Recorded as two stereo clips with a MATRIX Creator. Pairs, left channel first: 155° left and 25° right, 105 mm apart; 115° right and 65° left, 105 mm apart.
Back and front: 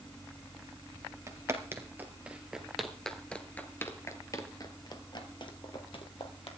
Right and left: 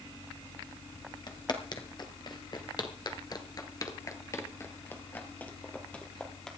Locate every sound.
1.3 s footsteps: 80° right, 2 m; by 6.5 s 165° left, 2.5 m